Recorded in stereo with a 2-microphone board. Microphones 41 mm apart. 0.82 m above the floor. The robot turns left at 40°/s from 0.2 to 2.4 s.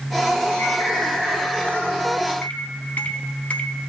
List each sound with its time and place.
0.6 s a bird: 85° left, 7 m; by 1.8 s 35° left, 7 m
2.4 s a microwave: 40° left (ahead or behind), 0.9 m